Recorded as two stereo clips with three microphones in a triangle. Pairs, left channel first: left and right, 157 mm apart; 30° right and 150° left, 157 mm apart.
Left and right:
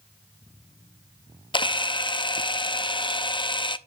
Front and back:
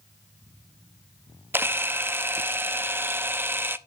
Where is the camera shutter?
90° left, 0.5 m.